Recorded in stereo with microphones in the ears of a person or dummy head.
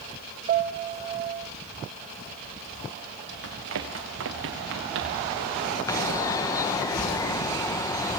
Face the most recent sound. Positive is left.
turn(degrees=20)  # may be behind; listen again after turning